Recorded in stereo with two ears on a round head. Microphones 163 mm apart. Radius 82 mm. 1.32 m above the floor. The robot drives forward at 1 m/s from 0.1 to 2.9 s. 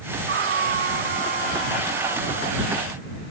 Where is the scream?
55° right (ahead or behind); by 2.9 s 45° right (ahead or behind).